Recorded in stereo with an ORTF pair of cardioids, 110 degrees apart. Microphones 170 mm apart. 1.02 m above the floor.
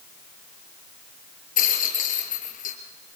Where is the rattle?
55° left, 5.5 m.